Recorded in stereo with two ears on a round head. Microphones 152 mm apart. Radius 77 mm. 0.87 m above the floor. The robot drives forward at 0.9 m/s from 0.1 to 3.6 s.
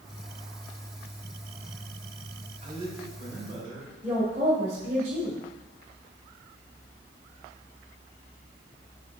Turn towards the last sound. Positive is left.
turn(degrees=-45)  # may be behind; listen again after turning